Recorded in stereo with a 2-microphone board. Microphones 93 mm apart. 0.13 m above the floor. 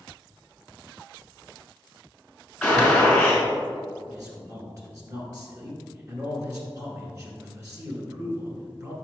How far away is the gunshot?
About 1.9 m.